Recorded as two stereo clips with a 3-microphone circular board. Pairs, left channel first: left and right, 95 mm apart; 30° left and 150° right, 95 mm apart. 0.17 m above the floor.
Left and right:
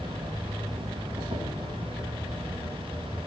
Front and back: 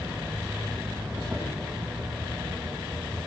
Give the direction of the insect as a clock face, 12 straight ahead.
2 o'clock.